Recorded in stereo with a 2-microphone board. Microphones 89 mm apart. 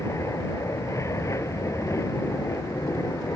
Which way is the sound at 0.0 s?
35° left (ahead or behind).